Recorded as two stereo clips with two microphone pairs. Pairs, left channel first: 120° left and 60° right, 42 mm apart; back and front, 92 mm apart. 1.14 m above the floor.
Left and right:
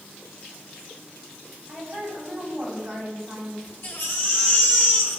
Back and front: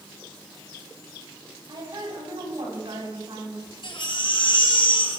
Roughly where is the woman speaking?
Ahead left.